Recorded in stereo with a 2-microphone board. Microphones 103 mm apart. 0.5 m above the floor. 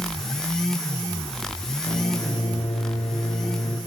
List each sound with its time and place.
1.9 s a microwave: 85° left, 8 m